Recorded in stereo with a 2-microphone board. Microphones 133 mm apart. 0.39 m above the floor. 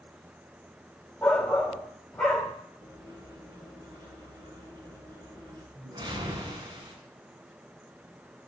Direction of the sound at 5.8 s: 35° right (ahead or behind).